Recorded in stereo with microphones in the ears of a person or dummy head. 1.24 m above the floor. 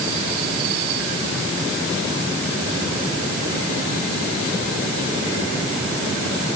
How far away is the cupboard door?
No cupboard door in this recording.